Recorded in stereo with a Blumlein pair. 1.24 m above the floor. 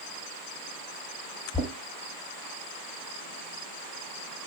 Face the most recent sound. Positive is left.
turn(degrees=-10)